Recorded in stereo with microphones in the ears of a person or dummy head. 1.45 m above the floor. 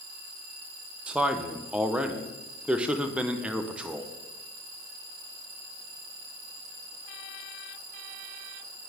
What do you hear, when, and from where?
1.1 s a man speaking: 10° right (ahead or behind), 0.5 m